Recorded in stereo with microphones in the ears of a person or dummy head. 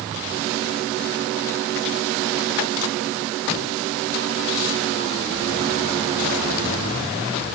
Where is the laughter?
No laughter in this recording.